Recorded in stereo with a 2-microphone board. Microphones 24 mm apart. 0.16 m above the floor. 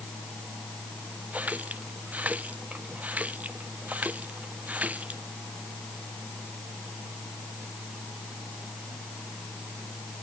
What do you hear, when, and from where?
1.3 s a running tap: 85° right